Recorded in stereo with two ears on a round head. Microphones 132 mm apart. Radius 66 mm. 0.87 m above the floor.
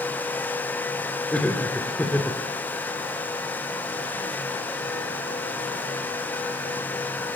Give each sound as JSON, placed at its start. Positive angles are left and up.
{"t": 1.3, "sound": "laughter", "side_deg": 10, "distance_m": 2.5}